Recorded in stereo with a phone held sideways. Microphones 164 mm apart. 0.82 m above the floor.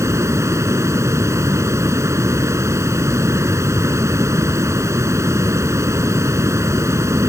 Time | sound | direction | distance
0.0 | running water | 20° right (ahead or behind) | ?